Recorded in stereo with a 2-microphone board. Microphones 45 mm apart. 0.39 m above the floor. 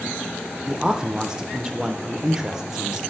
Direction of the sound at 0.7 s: 15° right (ahead or behind).